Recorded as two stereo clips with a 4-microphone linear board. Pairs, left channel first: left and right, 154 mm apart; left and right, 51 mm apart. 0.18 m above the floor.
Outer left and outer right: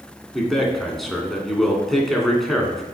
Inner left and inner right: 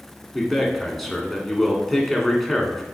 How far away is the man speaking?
About 1.9 m.